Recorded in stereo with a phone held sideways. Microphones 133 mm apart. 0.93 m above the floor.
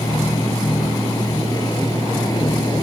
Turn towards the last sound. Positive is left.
turn(degrees=30)  # may be behind; listen again after turning